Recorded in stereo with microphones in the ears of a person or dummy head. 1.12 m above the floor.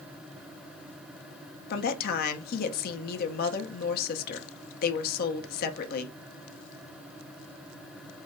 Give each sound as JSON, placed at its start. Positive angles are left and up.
{"t": 1.7, "sound": "a woman speaking", "side_deg": 50, "distance_m": 0.6}